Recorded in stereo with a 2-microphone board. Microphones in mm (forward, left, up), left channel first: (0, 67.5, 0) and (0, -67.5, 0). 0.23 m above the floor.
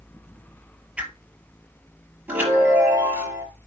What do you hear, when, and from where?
1.0 s a whoosh: 10° right (ahead or behind), 1.4 m
2.3 s a chime: 15° right (ahead or behind), 6 m